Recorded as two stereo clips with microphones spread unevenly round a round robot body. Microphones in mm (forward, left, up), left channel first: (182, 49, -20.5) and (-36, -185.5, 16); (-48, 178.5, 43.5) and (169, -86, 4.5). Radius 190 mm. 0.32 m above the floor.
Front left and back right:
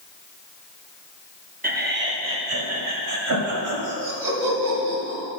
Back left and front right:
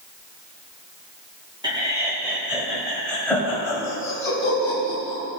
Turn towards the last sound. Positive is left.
turn(degrees=-150)